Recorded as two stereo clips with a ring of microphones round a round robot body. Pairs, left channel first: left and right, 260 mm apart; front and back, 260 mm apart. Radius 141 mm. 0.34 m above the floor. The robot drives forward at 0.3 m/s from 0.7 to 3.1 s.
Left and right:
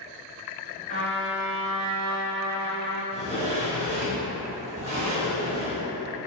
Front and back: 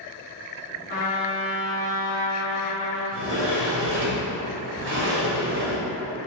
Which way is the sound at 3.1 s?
150° right.